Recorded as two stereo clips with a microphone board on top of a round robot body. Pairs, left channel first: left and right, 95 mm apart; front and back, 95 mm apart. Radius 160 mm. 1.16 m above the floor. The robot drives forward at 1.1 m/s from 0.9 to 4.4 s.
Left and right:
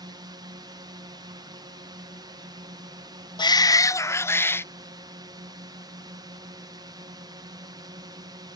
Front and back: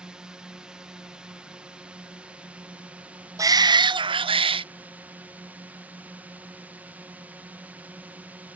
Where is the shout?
125° left; by 4.7 s 155° left.